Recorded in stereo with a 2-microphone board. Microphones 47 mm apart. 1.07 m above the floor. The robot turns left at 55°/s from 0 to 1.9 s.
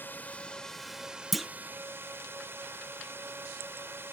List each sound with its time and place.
0.0 s a drone: 45° left; by 4.1 s 60° right
1.3 s a clunk: centre (ahead or behind); by 1.5 s 5° left (ahead or behind)